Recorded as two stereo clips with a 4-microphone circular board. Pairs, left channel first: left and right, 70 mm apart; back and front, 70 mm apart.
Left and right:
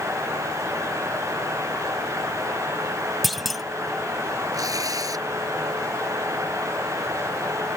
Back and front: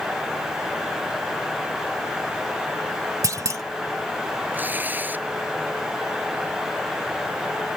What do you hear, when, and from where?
3.2 s a clunk: straight ahead
4.5 s tearing paper: 65° right